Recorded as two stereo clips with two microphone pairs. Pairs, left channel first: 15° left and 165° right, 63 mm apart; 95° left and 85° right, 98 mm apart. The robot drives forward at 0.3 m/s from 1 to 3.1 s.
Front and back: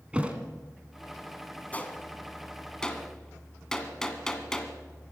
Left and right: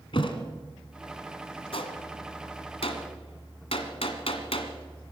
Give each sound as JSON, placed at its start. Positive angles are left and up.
{"t": 0.1, "sound": "a thud", "azimuth_deg": 125, "distance_m": 1.7}
{"t": 1.7, "sound": "a gunshot", "azimuth_deg": 80, "distance_m": 1.6}